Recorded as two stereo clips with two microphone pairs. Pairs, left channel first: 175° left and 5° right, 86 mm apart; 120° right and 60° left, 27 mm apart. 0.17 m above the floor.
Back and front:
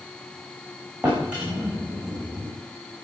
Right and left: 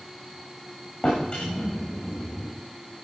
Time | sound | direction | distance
1.0 | a drawer | 80° right | 6 m